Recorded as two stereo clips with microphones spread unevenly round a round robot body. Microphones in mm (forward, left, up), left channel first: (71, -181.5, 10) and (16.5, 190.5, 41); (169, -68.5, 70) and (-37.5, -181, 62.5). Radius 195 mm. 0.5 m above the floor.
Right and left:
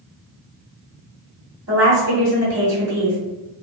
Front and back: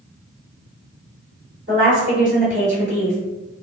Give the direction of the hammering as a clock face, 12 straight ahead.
No hammering in this recording.